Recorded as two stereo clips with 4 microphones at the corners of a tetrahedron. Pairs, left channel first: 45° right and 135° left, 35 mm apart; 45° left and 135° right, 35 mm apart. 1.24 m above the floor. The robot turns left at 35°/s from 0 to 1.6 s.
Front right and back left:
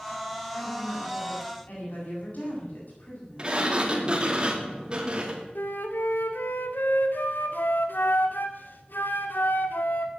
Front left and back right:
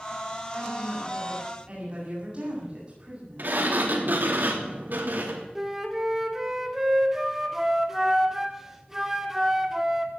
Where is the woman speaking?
40° right, 8 m; by 3.6 s 80° right, 8 m.